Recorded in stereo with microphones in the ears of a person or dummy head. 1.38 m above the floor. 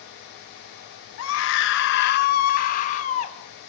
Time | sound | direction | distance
1.2 | a scream | 90° left | 1.3 m